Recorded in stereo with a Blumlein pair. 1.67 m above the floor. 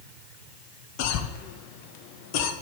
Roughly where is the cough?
Ahead left.